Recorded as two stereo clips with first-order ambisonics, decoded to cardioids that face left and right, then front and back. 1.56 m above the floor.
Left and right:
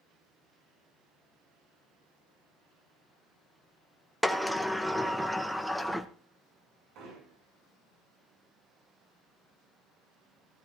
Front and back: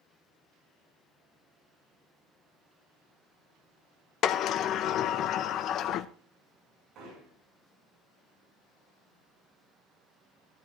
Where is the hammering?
130° right, 8 m.